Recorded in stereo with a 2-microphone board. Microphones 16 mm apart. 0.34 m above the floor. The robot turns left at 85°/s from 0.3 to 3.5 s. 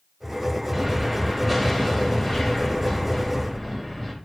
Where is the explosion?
120° right, 1.2 m; by 4.1 s straight ahead, 1.2 m.